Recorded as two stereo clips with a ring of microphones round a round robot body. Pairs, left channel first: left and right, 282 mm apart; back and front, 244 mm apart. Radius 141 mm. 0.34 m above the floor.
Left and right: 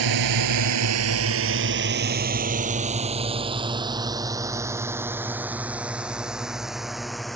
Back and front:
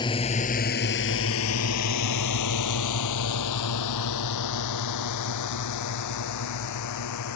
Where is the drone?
105° right; by 7.4 s straight behind.